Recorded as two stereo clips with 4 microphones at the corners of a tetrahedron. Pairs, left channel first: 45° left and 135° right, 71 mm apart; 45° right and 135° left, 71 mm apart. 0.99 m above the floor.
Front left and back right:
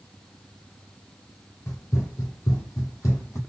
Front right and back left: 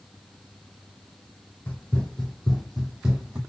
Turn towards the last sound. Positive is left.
turn(degrees=70)